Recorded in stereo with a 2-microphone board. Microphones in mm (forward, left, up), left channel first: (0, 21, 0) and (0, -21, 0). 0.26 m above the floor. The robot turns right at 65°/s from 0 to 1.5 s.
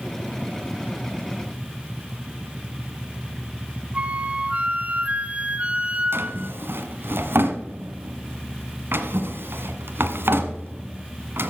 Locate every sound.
3.9 s a flute: 30° right (ahead or behind), 0.8 m
6.1 s a drawer: 60° right (ahead or behind), 1.5 m